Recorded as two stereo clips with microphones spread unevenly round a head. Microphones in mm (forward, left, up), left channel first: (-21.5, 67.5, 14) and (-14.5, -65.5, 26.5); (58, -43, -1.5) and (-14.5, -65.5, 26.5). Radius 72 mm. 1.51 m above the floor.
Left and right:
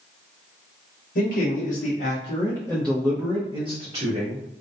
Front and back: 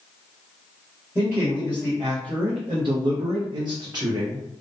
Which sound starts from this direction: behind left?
A man speaking, at 1.1 s.